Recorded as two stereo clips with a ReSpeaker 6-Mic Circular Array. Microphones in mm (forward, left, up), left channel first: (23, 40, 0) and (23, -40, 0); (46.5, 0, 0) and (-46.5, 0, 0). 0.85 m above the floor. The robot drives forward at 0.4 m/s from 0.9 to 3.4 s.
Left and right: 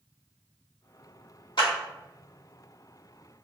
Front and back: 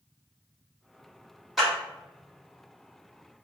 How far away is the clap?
About 1.8 m.